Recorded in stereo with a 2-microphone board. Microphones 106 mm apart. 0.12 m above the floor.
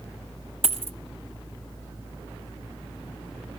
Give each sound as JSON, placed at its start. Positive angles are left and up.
{"t": 0.6, "sound": "a dropped coin", "side_deg": -65, "distance_m": 0.6}